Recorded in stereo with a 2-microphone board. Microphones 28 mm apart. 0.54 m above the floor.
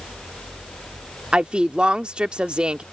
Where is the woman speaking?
45° right (ahead or behind).